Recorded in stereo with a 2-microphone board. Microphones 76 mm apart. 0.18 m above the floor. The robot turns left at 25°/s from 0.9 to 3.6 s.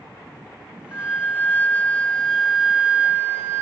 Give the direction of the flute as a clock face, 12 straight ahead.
11 o'clock.